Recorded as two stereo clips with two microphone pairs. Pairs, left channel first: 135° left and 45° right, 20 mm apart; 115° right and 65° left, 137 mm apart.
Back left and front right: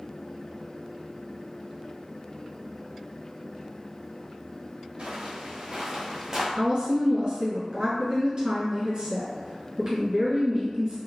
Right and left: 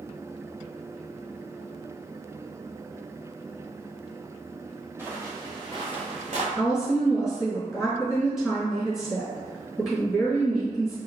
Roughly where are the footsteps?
Ahead.